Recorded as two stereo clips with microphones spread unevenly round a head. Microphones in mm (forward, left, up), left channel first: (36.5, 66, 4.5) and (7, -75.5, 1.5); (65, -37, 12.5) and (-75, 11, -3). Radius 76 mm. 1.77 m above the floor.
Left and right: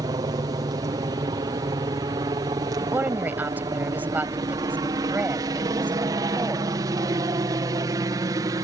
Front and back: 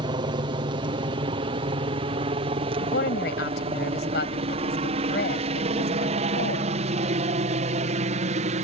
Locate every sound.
0.0 s a helicopter: 155° right; by 8.6 s 165° right
2.8 s a woman speaking: 25° right